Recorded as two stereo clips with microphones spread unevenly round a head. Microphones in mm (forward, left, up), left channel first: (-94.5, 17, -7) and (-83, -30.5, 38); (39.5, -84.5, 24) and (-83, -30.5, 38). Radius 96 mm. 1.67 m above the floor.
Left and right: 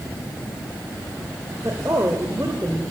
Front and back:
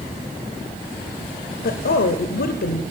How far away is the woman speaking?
About 0.6 m.